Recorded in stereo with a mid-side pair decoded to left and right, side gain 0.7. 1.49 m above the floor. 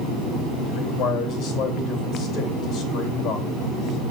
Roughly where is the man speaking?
Ahead left.